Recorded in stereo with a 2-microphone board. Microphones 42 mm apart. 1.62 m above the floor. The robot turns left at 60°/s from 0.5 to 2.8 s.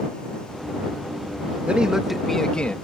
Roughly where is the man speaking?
Behind right.